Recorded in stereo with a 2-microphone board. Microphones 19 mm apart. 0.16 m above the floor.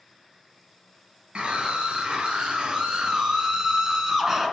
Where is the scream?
60° right (ahead or behind), 3 m; by 4.5 s 20° right (ahead or behind), 1.8 m.